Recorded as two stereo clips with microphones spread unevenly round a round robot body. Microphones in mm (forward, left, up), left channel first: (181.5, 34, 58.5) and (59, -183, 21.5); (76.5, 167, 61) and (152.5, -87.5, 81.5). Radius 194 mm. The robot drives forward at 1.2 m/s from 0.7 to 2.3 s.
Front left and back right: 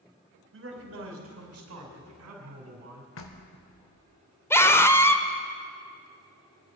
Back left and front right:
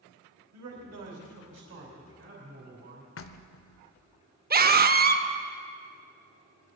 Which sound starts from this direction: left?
Knocking, at 3.2 s.